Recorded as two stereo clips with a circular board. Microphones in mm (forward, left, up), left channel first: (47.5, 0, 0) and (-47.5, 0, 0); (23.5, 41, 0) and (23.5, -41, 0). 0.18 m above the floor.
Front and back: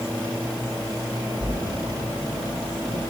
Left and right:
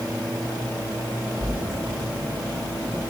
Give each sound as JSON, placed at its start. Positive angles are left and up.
{"t": 1.4, "sound": "a splash", "azimuth_deg": -140, "distance_m": 4.5}